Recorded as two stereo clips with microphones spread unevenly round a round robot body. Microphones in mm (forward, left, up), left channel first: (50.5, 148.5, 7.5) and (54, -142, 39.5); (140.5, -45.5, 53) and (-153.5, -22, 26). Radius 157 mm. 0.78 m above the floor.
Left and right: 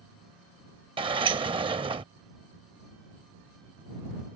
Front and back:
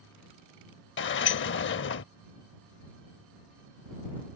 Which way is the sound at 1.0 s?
30° right.